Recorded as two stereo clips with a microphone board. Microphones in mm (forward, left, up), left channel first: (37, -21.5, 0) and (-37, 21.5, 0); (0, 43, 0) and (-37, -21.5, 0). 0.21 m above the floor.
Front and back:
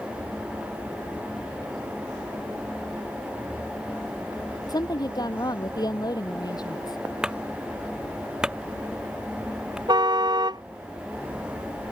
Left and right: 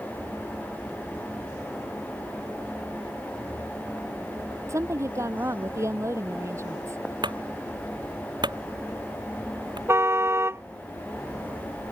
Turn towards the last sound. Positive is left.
turn(degrees=-175)